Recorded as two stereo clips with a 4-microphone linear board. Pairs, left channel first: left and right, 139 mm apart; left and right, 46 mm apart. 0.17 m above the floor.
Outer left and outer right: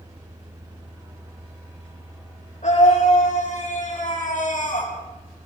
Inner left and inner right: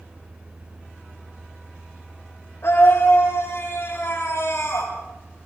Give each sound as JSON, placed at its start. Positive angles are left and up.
{"t": 2.6, "sound": "a scream", "side_deg": 60, "distance_m": 7.0}